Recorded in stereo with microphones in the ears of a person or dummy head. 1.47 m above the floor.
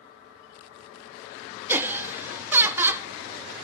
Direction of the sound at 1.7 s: 15° right (ahead or behind).